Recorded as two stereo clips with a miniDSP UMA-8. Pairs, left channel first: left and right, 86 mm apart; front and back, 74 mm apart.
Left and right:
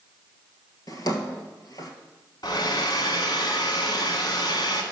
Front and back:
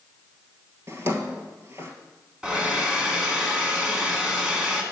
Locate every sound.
0.9 s a drawer: 130° left, 1.3 m
2.4 s a hair dryer: 105° left, 1.4 m